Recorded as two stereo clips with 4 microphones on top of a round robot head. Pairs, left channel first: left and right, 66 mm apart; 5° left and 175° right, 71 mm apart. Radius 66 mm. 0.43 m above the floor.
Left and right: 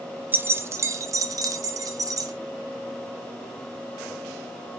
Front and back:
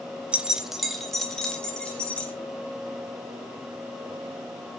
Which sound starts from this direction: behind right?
Keys jangling, at 0.3 s.